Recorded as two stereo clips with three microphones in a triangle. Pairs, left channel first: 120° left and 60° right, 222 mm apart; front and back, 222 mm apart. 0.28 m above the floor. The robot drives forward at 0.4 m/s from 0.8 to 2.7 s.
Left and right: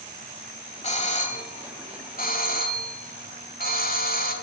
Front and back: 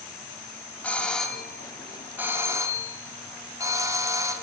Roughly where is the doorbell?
Left.